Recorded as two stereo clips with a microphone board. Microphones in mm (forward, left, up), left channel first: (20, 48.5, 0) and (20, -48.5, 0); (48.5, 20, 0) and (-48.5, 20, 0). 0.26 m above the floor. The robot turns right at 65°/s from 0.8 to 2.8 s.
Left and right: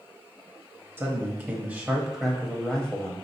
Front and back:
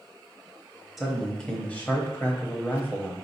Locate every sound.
1.0 s a man speaking: 90° right, 1.0 m; by 3.1 s 25° left, 1.0 m